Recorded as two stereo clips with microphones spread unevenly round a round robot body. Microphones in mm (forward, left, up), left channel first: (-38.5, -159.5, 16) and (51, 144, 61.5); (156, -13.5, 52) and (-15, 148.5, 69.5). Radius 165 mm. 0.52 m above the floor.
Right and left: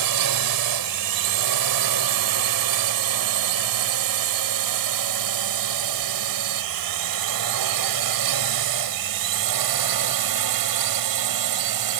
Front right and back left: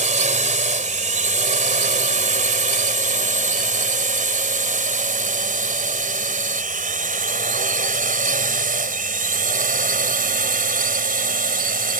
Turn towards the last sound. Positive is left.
turn(degrees=85)